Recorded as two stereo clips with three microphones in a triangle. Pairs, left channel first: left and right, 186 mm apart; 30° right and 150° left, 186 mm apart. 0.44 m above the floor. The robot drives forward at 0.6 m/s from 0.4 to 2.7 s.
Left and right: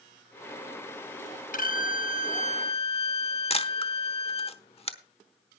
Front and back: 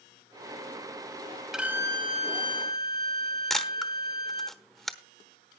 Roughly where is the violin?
Ahead left.